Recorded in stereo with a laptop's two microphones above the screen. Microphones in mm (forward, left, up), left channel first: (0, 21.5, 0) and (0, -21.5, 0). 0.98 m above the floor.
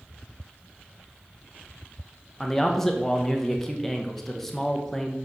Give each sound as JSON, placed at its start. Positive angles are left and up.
{"t": 2.4, "sound": "a man speaking", "side_deg": 10, "distance_m": 1.1}